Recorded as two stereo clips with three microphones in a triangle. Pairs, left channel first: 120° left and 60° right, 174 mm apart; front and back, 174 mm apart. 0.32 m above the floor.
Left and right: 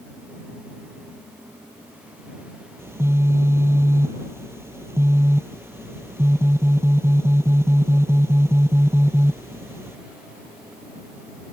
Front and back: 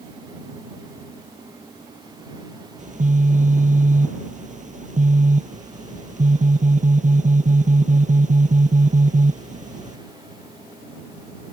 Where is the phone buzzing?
135° right.